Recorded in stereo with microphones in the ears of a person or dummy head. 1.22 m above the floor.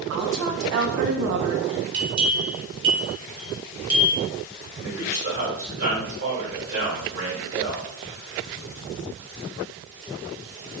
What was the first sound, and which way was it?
A woman speaking, 60° right (ahead or behind).